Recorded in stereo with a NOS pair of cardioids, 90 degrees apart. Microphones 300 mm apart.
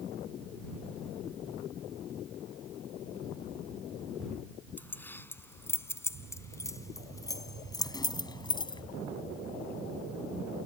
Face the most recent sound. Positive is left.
turn(degrees=15)